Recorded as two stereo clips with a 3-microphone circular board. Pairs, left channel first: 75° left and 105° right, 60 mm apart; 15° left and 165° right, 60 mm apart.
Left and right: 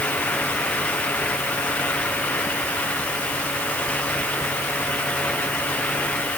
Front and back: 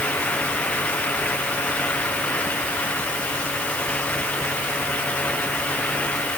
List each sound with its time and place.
Only background noise.